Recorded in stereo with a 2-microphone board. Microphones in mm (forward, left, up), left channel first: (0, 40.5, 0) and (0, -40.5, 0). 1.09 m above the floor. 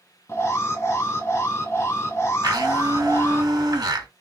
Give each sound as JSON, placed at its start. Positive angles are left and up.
{"t": 0.3, "sound": "an alarm", "side_deg": 35, "distance_m": 1.4}
{"t": 2.4, "sound": "a blender", "side_deg": -55, "distance_m": 1.7}